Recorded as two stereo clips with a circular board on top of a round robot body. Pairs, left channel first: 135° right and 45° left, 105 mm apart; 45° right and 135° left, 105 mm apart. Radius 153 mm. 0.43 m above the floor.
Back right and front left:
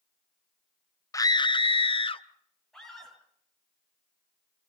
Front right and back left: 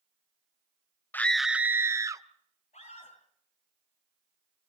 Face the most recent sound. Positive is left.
turn(degrees=-50)